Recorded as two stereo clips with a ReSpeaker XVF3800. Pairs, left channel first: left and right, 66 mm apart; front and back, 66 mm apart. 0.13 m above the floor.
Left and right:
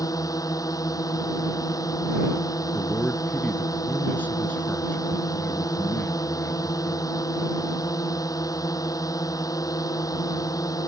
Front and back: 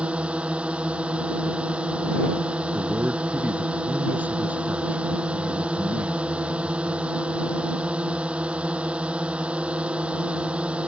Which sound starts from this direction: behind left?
A man speaking, at 2.7 s.